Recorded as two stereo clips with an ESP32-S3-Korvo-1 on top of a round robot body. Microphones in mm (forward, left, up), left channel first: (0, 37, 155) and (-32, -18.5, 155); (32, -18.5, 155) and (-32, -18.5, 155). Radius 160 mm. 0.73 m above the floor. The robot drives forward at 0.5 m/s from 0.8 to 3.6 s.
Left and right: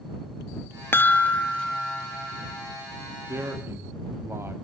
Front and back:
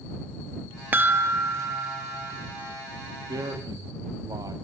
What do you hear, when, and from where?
0.9 s a chime: 120° left, 0.7 m; by 2.7 s 155° left, 1.4 m
3.3 s a man speaking: 170° right, 1.8 m